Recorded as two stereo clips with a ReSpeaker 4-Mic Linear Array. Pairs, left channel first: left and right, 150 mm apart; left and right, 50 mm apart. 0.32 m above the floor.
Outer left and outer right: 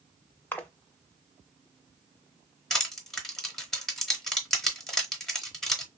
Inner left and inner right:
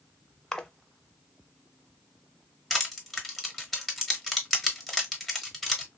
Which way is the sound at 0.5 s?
15° left (ahead or behind).